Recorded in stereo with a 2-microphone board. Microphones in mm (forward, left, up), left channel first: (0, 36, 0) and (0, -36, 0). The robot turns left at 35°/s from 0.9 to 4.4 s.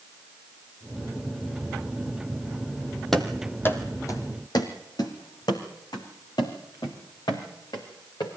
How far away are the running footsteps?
About 2.0 m.